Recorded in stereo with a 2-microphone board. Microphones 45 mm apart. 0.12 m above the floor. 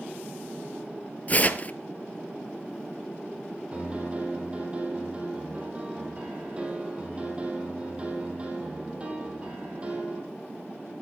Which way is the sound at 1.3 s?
35° left (ahead or behind).